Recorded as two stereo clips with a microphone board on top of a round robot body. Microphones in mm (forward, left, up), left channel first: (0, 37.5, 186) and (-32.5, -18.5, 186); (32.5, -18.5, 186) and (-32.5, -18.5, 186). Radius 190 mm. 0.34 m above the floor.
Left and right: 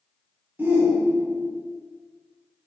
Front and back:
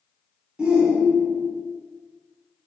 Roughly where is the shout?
Behind right.